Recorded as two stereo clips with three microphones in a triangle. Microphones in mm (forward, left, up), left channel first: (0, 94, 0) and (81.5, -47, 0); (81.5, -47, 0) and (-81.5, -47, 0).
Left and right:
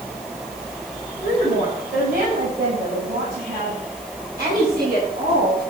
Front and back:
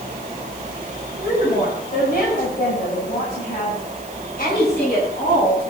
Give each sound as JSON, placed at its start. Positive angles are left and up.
{"t": 1.2, "sound": "a woman speaking", "azimuth_deg": -35, "distance_m": 6.0}